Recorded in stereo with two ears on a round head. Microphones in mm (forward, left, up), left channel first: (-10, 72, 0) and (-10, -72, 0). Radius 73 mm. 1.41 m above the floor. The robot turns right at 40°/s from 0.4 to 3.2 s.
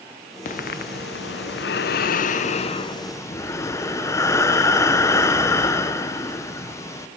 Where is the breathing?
50° left, 0.6 m; by 7.1 s 160° left, 0.6 m.